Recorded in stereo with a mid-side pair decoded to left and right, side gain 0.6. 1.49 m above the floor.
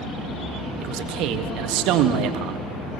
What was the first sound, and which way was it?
A man speaking, 70° right.